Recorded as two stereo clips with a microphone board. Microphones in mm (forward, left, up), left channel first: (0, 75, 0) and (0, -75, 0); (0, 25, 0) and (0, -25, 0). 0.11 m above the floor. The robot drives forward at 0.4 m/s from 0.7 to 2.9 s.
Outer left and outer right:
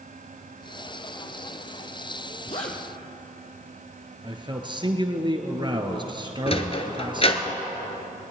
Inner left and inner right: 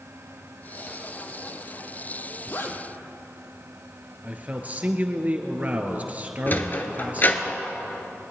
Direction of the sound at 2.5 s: 50° left (ahead or behind).